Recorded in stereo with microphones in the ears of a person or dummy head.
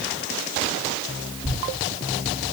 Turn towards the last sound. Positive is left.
turn(degrees=35)  # may be behind; listen again after turning